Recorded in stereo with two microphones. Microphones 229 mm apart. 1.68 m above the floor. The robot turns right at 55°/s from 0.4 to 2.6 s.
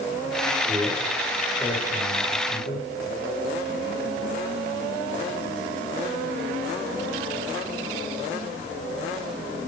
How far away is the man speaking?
About 9 m.